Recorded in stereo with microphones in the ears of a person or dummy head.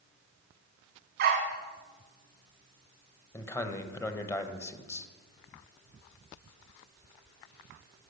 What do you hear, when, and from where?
1.2 s a dog barking: 45° right (ahead or behind), 1.4 m
3.3 s a man speaking: 15° left (ahead or behind), 1.0 m